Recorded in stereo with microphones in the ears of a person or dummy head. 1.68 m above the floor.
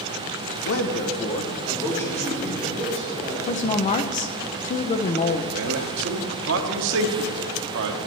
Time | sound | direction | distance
0.7 | a man speaking | 70° left (ahead or behind) | 1.1 m
3.5 | a woman speaking | 35° left (ahead or behind) | 0.7 m
5.5 | a man speaking | 70° right (ahead or behind) | 1.2 m